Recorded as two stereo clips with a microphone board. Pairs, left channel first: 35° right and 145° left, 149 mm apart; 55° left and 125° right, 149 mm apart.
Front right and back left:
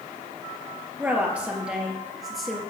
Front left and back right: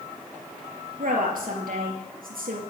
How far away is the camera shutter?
I don't hear a camera shutter.